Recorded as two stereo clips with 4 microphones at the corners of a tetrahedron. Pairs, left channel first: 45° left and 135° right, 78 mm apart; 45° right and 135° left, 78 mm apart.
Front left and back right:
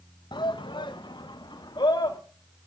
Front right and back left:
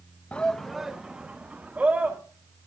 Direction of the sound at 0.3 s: 30° left.